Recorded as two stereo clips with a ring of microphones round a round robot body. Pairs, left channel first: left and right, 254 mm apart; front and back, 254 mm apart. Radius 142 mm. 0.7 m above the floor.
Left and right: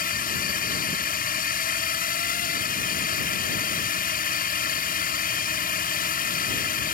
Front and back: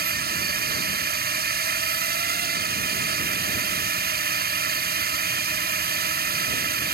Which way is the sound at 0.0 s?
140° left.